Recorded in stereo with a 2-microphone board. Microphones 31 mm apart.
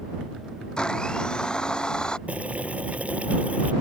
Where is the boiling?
45° right (ahead or behind).